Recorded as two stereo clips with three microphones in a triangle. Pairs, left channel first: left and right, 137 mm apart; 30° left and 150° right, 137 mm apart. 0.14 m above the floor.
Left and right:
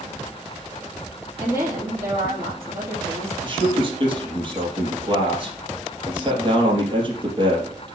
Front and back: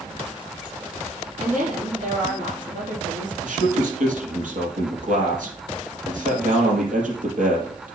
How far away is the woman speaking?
About 4.5 m.